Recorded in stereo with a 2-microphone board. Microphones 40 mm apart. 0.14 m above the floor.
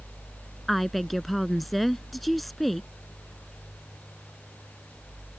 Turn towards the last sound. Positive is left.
turn(degrees=0)  # may be behind; listen again after turning